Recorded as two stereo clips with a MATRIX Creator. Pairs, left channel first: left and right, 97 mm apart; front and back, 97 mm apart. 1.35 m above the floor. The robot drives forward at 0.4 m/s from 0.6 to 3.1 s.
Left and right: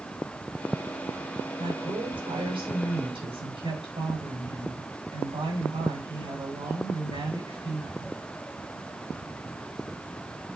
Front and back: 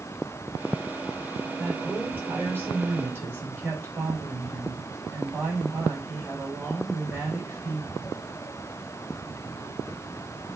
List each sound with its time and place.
1.6 s a woman speaking: 105° right, 6 m; by 8.2 s 110° right, 6 m